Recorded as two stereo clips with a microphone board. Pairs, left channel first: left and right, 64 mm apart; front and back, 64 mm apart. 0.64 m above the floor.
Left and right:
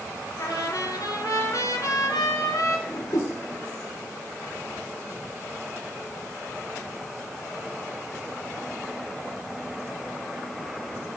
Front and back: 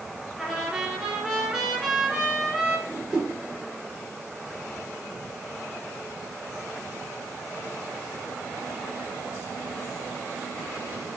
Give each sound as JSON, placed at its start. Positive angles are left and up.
{"t": 0.4, "sound": "a trumpet", "azimuth_deg": 90, "distance_m": 1.8}
{"t": 2.9, "sound": "a whoosh", "azimuth_deg": 100, "distance_m": 0.7}